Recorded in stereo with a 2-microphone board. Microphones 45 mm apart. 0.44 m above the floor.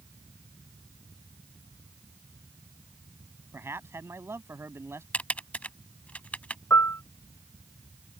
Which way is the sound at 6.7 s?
70° left (ahead or behind).